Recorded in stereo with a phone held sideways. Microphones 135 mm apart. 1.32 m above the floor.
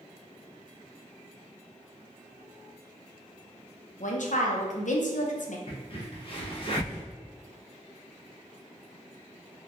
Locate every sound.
4.0 s a woman speaking: 70° left (ahead or behind), 0.5 m
5.7 s a crack: 45° left (ahead or behind), 0.8 m